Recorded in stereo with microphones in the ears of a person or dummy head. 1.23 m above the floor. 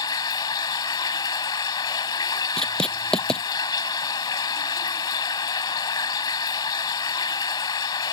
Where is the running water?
25° left (ahead or behind).